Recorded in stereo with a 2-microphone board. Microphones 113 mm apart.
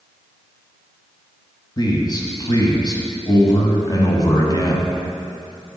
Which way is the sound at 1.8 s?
35° left (ahead or behind).